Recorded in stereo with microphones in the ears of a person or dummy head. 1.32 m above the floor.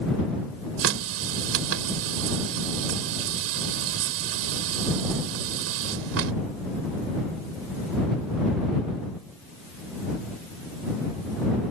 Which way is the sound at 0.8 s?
80° right.